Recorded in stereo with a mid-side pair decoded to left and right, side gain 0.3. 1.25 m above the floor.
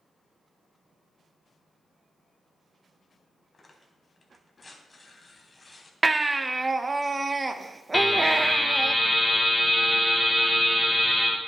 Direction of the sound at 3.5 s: 35° left.